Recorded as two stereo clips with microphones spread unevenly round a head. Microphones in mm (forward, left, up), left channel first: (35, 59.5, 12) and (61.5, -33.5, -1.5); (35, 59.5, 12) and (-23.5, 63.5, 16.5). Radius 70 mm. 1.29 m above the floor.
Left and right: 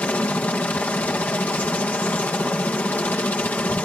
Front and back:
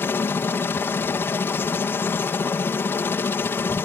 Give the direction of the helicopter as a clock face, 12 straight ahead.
11 o'clock.